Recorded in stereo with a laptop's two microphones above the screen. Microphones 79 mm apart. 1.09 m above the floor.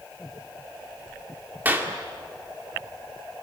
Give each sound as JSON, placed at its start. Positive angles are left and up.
{"t": 1.6, "sound": "a clap", "side_deg": -20, "distance_m": 2.0}